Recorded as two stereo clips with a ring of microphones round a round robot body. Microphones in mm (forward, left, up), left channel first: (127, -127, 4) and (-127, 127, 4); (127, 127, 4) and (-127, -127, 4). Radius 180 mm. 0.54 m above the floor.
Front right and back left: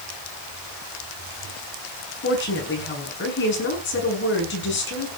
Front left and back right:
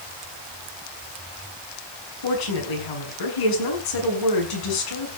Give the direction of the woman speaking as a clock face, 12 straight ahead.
11 o'clock.